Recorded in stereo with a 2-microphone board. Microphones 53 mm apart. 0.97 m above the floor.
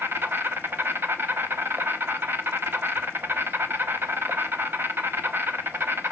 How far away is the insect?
About 0.8 m.